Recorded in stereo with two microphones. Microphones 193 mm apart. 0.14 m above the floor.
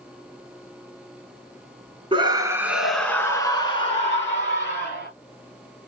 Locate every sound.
2.1 s a scream: 25° right (ahead or behind), 1.1 m; by 5.1 s 45° left (ahead or behind), 2 m